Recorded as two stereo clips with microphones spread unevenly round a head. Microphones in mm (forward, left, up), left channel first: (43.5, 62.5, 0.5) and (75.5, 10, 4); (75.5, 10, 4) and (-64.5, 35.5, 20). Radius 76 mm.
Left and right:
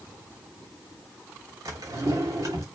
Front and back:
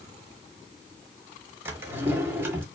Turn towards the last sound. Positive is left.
turn(degrees=-115)